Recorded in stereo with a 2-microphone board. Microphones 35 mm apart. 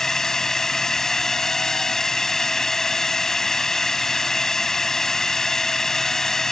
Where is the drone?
15° left (ahead or behind).